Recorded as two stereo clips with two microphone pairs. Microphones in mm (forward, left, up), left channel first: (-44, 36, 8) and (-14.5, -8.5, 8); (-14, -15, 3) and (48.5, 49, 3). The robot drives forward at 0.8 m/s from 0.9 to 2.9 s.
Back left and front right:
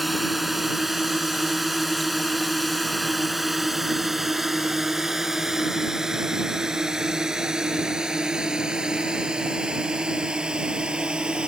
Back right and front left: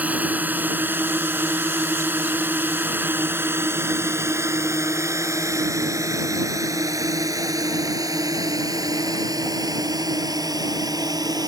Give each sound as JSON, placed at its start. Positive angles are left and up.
{"t": 0.0, "sound": "a drone", "azimuth_deg": 30}